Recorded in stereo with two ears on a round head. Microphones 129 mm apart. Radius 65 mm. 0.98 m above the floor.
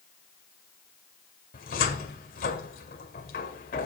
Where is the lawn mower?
I don't hear a lawn mower.